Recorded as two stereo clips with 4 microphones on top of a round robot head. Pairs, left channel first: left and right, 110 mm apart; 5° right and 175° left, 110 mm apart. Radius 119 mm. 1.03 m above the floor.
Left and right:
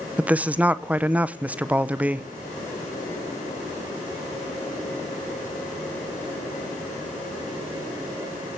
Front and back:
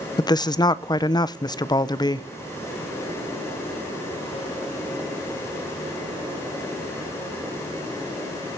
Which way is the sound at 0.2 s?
20° right.